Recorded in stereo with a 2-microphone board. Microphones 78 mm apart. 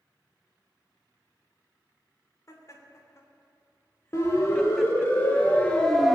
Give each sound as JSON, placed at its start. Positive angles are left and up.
{"t": 2.5, "sound": "laughter", "side_deg": 45, "distance_m": 3.0}
{"t": 4.1, "sound": "a siren", "side_deg": 40, "distance_m": 3.5}